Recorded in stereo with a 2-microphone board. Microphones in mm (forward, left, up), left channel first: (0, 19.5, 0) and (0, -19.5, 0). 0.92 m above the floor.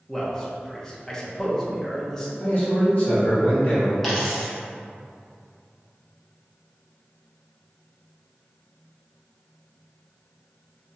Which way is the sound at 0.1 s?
15° left (ahead or behind).